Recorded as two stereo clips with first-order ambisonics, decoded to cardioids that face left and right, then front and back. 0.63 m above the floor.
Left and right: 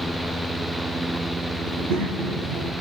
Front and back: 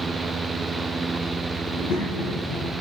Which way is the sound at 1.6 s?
50° right.